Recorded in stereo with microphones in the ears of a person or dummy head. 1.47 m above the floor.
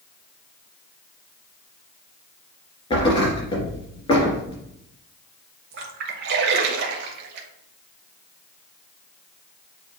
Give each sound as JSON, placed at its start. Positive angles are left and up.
{"t": 2.9, "sound": "a thud", "side_deg": 25, "distance_m": 3.0}
{"t": 5.7, "sound": "a splash", "side_deg": -60, "distance_m": 1.2}